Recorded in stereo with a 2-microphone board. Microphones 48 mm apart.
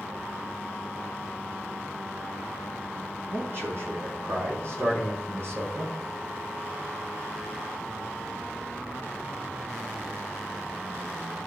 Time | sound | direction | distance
3.3 | a man speaking | 50° right (ahead or behind) | 5.5 m